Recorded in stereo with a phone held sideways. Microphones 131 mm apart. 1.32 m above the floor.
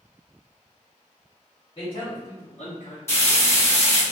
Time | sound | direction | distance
1.8 | a man speaking | 40° left (ahead or behind) | 1.1 m
3.1 | frying | 20° left (ahead or behind) | 1.2 m